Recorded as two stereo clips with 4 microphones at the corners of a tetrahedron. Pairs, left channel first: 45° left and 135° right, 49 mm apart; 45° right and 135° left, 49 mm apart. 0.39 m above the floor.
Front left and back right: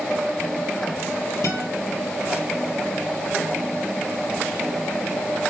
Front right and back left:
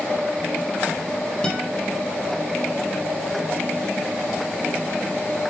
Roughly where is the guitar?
Ahead left.